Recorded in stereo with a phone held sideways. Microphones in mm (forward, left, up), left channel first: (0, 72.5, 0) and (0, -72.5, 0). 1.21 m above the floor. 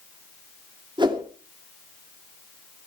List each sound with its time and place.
1.0 s a whoosh: 30° right (ahead or behind), 2.5 m